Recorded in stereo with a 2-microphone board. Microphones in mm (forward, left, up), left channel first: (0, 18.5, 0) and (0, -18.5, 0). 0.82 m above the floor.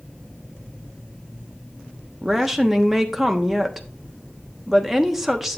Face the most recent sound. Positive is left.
turn(degrees=-10)  # may be behind; listen again after turning